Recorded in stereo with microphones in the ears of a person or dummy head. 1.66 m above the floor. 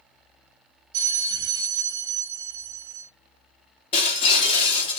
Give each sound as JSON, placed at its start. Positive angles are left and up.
{"t": 0.9, "sound": "a bell", "side_deg": -60, "distance_m": 1.1}
{"t": 3.9, "sound": "breaking glass", "side_deg": 30, "distance_m": 3.0}